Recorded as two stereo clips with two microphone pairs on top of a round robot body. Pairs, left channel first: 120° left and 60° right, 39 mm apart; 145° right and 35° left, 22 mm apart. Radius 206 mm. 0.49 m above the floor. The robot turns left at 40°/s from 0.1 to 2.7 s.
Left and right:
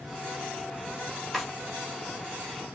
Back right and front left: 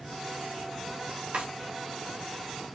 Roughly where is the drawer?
Ahead left.